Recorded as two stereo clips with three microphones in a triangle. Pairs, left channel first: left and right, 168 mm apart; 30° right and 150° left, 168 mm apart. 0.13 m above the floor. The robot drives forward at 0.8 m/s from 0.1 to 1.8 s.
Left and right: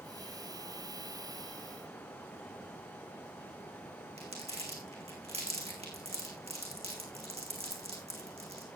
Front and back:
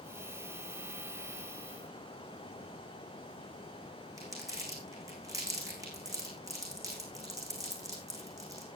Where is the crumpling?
140° right, 3.5 m.